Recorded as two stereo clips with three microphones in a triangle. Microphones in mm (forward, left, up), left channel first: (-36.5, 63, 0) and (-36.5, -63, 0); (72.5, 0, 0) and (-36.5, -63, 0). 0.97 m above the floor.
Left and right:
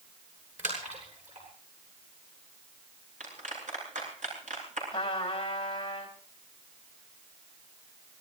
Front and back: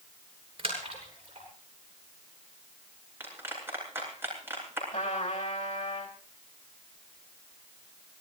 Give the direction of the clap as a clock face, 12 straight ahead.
3 o'clock.